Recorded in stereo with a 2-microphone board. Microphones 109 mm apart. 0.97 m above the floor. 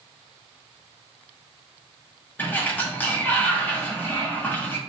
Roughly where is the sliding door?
Centre.